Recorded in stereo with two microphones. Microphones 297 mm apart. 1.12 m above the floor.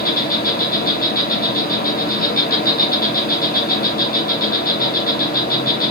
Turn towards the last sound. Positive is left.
turn(degrees=30)  # may be behind; listen again after turning